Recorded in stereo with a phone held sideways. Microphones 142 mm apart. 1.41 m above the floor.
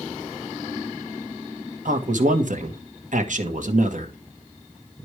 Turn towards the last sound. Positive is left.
turn(degrees=-65)  # may be behind; listen again after turning